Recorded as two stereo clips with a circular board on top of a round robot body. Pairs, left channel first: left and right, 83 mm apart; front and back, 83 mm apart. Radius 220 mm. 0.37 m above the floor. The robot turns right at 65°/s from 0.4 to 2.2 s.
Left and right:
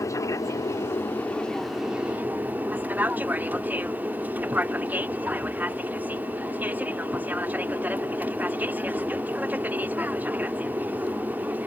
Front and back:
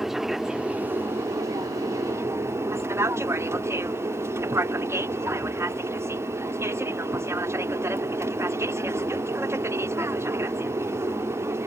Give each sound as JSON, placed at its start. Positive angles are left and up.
{"t": 0.0, "sound": "an aircraft", "azimuth_deg": 95}